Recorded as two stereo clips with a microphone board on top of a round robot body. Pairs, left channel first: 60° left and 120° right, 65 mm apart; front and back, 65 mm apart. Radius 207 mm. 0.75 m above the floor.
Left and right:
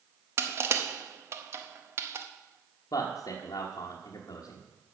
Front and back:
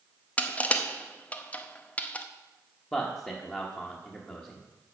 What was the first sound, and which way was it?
Crushing, 70° right.